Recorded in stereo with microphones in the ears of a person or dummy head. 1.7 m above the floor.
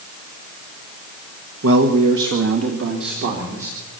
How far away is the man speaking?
About 1.6 m.